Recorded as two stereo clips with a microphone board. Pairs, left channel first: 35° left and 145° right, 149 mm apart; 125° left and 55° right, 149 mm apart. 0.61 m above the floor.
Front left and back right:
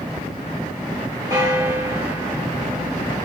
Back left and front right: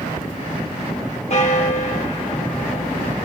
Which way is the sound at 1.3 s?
155° left.